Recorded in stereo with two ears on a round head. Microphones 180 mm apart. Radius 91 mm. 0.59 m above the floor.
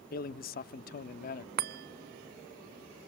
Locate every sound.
0.1 s a man speaking: 45° left (ahead or behind), 0.8 m
1.6 s a chime: 50° right (ahead or behind), 0.6 m